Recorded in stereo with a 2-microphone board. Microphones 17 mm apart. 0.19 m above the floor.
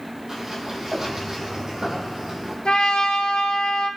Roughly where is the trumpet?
Left.